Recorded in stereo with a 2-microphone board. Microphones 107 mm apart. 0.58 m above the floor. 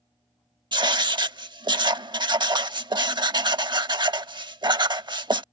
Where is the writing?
50° right (ahead or behind).